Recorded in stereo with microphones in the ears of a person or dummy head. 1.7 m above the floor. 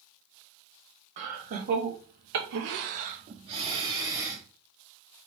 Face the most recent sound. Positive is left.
turn(degrees=-5)  # may be behind; listen again after turning